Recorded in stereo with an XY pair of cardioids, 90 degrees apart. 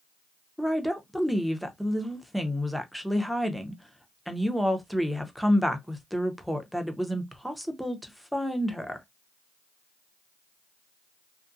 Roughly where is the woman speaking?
Ahead.